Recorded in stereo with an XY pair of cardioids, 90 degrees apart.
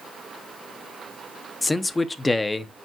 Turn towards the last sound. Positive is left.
turn(degrees=25)